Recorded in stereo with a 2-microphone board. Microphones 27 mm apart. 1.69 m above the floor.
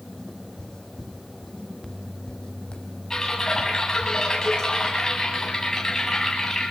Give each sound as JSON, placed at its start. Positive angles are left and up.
{"t": 0.2, "sound": "footsteps", "side_deg": 25, "distance_m": 5.5}
{"t": 3.1, "sound": "typing on a keyboard", "side_deg": 20, "distance_m": 9.0}